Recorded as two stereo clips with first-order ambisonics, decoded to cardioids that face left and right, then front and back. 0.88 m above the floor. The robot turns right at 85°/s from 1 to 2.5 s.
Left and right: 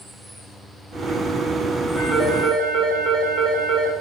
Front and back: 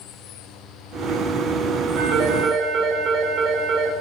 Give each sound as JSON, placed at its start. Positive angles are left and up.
{"t": 2.0, "sound": "a phone ringing", "azimuth_deg": -175, "distance_m": 2.0}